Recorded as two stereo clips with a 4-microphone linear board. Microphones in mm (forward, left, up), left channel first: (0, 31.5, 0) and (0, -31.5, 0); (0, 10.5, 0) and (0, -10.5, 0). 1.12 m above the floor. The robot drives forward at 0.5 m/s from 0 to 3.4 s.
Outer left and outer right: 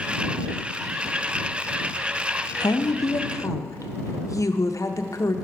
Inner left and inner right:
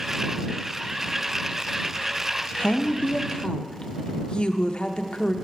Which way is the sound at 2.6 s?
85° left.